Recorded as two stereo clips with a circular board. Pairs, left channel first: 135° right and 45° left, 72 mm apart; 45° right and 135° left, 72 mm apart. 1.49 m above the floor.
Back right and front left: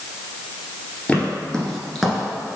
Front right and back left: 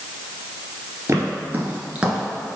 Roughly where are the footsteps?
Behind.